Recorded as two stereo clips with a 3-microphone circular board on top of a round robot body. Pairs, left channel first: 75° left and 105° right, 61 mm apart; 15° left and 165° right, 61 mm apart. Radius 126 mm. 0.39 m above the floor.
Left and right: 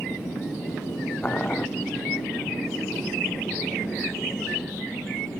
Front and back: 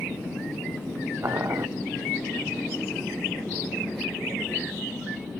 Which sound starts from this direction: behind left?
Boiling, at 1.2 s.